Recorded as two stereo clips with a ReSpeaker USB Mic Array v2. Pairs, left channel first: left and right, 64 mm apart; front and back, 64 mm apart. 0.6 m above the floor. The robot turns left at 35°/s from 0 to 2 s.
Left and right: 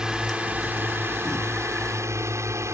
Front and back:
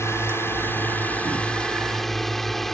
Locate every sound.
0.0 s a drone: 15° right; by 2.8 s 85° right